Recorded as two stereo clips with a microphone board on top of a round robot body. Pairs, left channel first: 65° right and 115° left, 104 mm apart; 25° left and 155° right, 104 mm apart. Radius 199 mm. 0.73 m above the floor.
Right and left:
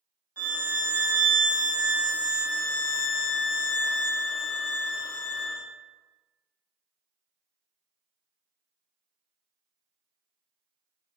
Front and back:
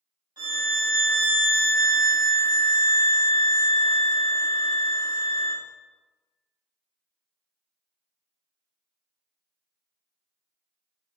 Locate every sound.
0.4 s a violin: 175° left, 1.4 m